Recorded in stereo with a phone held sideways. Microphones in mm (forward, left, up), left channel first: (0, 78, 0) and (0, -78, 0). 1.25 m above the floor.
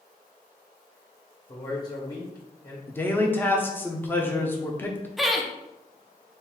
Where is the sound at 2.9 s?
10° left (ahead or behind), 0.6 m.